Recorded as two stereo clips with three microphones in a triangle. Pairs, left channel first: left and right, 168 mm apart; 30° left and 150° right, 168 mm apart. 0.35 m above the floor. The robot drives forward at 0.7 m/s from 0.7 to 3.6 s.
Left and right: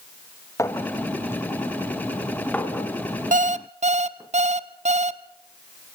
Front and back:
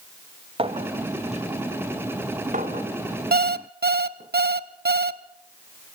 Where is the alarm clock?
130° right, 0.9 m; by 5.2 s 135° right, 1.1 m.